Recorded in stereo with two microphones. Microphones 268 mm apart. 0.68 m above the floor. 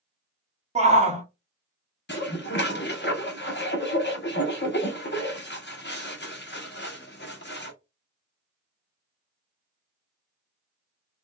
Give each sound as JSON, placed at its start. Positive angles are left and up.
{"t": 0.8, "sound": "a shout", "side_deg": -25, "distance_m": 0.9}
{"t": 2.1, "sound": "dishes clattering", "side_deg": 45, "distance_m": 0.7}